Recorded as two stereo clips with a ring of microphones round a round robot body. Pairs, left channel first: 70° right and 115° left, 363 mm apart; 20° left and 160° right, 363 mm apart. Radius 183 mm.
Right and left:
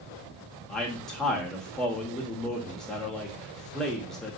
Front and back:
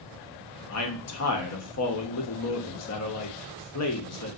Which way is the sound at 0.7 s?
20° left.